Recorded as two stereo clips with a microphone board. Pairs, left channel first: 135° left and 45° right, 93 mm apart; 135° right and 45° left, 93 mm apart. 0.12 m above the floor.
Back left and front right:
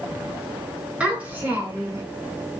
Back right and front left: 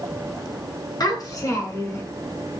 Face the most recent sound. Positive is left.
turn(degrees=-90)